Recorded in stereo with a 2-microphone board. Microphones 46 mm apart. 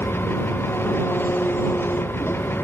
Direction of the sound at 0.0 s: 55° left (ahead or behind).